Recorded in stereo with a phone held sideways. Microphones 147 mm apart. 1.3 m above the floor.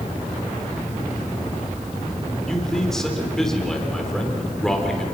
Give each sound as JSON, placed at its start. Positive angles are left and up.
{"t": 2.5, "sound": "a man speaking", "side_deg": 5, "distance_m": 4.0}